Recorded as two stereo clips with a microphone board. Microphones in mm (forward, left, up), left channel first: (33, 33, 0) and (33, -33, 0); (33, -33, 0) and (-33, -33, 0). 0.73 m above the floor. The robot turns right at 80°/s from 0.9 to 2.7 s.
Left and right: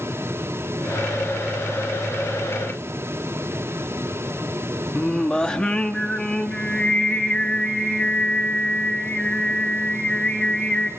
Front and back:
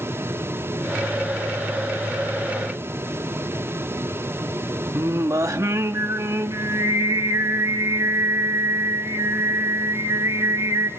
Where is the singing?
160° left, 1.0 m.